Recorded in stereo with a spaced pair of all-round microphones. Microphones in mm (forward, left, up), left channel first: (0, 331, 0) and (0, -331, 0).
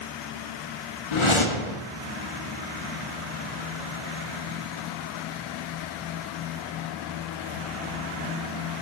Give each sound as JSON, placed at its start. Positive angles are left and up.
{"t": 1.1, "sound": "a whoosh", "side_deg": 50, "distance_m": 0.6}